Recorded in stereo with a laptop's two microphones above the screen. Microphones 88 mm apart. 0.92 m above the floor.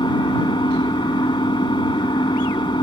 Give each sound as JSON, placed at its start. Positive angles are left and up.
{"t": 0.0, "sound": "an engine running", "side_deg": 65}